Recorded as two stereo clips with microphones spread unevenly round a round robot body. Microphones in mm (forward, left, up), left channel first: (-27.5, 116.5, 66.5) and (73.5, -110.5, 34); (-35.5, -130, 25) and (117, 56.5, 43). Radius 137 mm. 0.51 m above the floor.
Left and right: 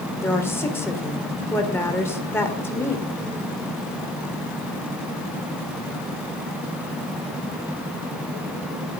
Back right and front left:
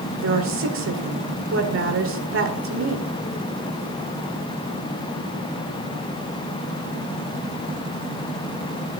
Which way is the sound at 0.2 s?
30° left.